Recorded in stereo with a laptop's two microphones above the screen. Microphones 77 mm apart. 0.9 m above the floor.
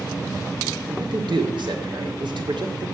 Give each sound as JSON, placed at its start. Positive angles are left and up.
{"t": 0.9, "sound": "a man speaking", "side_deg": -75, "distance_m": 2.5}